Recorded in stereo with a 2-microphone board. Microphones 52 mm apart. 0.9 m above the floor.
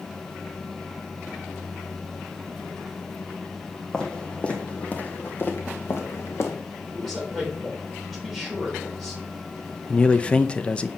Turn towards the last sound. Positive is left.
turn(degrees=25)  # may be behind; listen again after turning